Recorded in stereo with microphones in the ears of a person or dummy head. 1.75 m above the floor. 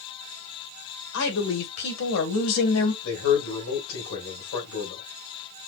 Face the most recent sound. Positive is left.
turn(degrees=75)  # may be behind; listen again after turning